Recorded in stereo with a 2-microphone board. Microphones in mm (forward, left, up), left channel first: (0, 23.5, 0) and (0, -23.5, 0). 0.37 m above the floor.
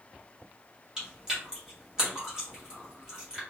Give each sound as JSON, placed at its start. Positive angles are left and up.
{"t": 1.0, "sound": "chewing", "side_deg": -15, "distance_m": 1.9}